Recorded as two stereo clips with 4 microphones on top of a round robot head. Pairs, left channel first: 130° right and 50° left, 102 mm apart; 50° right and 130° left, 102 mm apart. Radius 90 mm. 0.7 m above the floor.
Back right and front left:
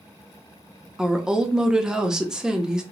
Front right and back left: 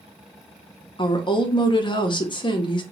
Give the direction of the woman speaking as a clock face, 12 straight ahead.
1 o'clock.